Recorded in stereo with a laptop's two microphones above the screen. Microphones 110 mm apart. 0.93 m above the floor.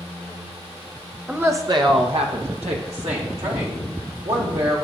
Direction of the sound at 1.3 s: 5° right (ahead or behind).